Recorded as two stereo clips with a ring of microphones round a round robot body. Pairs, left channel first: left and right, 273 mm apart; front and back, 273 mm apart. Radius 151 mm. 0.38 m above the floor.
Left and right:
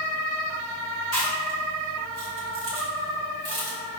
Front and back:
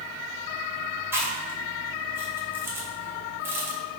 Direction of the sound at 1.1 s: 100° right.